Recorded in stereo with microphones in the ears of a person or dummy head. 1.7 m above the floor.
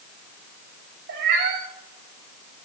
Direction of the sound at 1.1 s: 60° right (ahead or behind).